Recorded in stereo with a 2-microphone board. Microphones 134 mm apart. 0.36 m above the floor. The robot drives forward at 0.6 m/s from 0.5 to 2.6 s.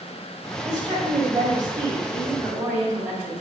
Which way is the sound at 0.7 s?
35° right (ahead or behind).